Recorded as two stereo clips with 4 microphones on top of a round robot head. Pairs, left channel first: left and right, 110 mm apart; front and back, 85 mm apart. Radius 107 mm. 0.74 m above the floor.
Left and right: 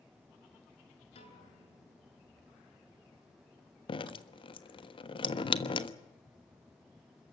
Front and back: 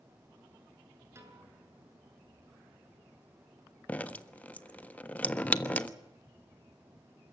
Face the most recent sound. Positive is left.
turn(degrees=70)